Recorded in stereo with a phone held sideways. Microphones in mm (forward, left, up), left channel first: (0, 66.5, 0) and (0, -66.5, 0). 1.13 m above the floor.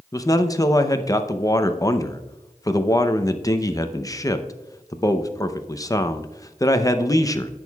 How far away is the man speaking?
About 0.6 m.